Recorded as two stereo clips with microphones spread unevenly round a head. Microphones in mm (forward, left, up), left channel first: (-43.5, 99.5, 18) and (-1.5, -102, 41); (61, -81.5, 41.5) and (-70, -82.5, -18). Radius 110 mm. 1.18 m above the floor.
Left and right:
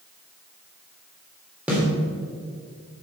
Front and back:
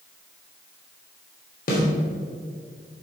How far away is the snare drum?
About 3 m.